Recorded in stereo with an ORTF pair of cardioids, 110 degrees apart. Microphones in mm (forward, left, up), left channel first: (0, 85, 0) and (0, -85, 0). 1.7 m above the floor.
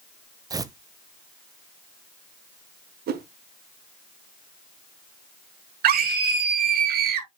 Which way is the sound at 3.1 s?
65° right.